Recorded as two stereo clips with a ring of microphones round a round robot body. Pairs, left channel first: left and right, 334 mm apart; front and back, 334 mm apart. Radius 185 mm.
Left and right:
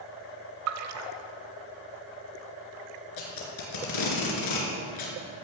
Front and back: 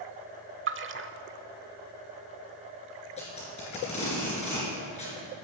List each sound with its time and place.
0.7 s a splash: 130° right, 0.8 m
3.2 s tape being pulled: 75° left, 3.5 m